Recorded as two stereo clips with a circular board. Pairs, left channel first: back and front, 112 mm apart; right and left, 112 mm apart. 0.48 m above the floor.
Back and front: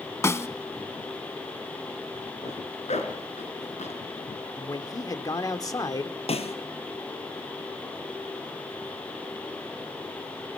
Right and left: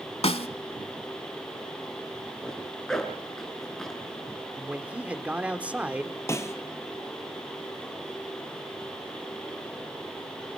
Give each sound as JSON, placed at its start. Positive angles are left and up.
{"t": 0.2, "sound": "a snare drum", "azimuth_deg": -115, "distance_m": 1.0}
{"t": 2.4, "sound": "a zipper", "azimuth_deg": -175, "distance_m": 4.5}
{"t": 4.6, "sound": "a man speaking", "azimuth_deg": 160, "distance_m": 1.4}
{"t": 6.3, "sound": "a snare drum", "azimuth_deg": -155, "distance_m": 1.9}